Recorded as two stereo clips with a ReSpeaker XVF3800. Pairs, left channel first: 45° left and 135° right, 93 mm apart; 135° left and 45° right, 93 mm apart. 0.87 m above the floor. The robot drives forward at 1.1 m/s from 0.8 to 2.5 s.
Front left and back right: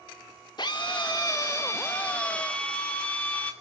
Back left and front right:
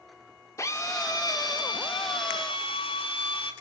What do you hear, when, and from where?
0.6 s a drill: 80° left, 2.5 m; by 3.5 s 120° left, 3 m